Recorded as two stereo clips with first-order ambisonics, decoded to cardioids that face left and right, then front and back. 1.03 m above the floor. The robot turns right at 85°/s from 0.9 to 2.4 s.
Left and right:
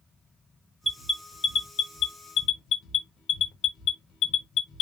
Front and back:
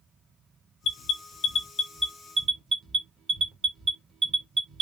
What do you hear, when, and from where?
0.8 s an alarm: straight ahead, 1.2 m; by 4.8 s 125° left, 1.2 m